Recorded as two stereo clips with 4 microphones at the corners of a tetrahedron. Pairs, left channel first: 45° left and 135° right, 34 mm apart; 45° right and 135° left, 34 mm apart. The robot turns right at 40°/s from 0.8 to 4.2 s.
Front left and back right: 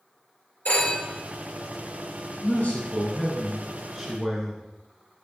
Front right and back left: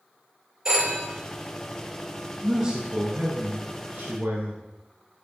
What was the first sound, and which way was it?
A phone ringing, 65° left.